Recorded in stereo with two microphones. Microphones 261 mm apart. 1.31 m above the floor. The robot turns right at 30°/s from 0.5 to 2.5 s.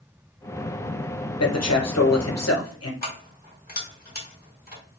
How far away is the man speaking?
About 0.9 m.